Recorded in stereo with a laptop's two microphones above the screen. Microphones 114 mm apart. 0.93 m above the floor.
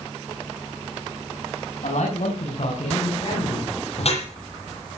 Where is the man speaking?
75° left (ahead or behind), 5 m; by 3.7 s 50° left (ahead or behind), 6 m.